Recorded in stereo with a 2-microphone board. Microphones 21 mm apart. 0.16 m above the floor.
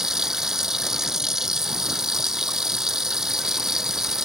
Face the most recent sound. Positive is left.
turn(degrees=-25)  # may be behind; listen again after turning